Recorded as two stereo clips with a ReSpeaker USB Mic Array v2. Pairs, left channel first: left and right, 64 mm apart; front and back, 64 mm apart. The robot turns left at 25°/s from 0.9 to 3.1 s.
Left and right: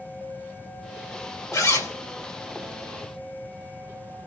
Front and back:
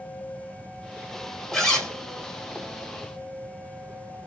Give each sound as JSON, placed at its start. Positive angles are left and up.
{"t": 1.5, "sound": "a zipper", "azimuth_deg": 80, "distance_m": 1.7}